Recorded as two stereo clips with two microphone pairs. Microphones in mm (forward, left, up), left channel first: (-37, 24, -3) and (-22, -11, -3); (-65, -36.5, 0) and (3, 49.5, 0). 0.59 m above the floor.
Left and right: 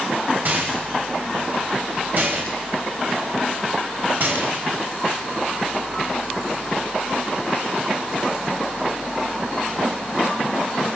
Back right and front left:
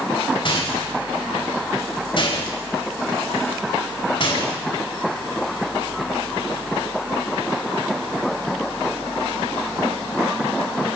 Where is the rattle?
95° right, 4 m.